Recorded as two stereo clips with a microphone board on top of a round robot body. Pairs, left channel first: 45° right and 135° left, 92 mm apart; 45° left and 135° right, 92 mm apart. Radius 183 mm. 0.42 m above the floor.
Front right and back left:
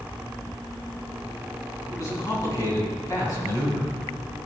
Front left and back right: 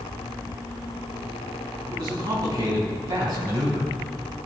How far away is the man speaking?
About 4 m.